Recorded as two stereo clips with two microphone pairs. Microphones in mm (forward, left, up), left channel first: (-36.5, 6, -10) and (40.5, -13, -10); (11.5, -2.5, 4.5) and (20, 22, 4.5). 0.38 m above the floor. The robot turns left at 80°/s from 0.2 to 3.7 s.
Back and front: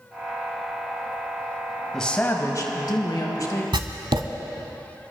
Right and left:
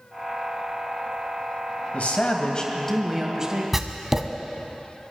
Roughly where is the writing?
Ahead.